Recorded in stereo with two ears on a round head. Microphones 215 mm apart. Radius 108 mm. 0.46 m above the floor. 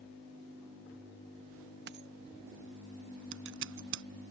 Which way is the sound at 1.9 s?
45° right (ahead or behind).